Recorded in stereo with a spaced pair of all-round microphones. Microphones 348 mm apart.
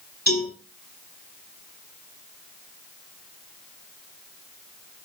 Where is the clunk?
No clunk in this recording.